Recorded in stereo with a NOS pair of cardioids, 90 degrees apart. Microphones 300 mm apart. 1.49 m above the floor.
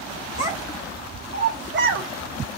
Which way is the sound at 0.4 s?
15° right.